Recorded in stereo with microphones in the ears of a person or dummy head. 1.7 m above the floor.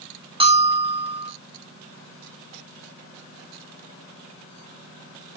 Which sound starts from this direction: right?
A bell, at 0.4 s.